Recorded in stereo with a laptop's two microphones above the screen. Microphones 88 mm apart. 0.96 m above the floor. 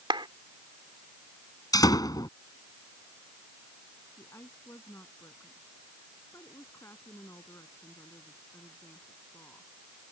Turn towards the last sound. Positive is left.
turn(degrees=30)  # may be behind; listen again after turning